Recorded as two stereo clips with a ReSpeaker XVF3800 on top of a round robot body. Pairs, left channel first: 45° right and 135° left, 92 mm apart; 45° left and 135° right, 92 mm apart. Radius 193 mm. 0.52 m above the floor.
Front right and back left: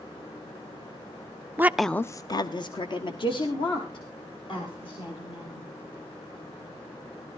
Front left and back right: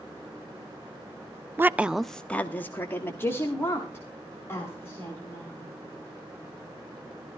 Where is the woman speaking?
Straight behind, 0.7 m; by 5.6 s 20° right, 4.5 m.